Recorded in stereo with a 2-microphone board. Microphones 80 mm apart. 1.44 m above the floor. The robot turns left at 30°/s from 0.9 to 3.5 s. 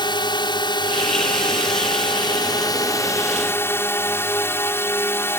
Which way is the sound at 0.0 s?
110° left.